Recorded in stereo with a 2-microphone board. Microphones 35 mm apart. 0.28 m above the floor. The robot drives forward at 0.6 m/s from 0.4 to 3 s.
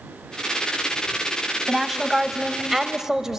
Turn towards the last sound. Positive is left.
turn(degrees=-15)  # may be behind; listen again after turning